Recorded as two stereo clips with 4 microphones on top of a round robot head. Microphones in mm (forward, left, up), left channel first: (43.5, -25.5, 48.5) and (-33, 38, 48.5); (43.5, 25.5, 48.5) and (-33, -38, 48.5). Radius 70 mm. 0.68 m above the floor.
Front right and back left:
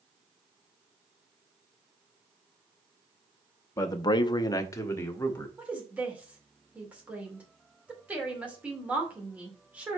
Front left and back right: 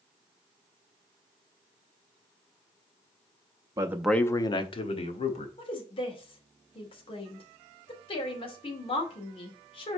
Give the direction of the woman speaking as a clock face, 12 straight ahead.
10 o'clock.